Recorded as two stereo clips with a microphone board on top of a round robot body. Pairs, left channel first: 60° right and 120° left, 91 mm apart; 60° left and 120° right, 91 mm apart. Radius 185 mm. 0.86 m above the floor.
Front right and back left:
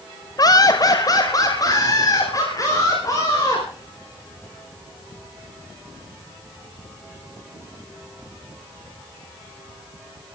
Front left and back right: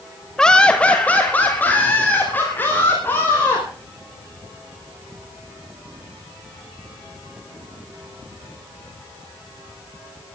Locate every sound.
0.4 s laughter: 20° right, 1.3 m; by 3.6 s 10° right, 5.5 m